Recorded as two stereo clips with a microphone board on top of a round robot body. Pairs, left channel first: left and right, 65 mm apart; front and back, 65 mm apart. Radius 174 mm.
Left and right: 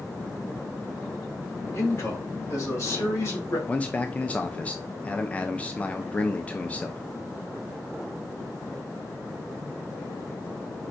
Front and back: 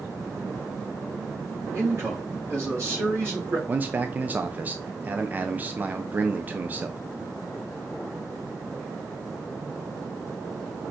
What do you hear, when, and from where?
1.7 s a man speaking: 135° left, 3 m
3.7 s a man speaking: 140° left, 0.7 m